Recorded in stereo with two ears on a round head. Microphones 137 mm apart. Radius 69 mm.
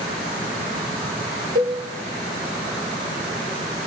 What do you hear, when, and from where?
1.6 s a cowbell: 55° right (ahead or behind), 5.5 m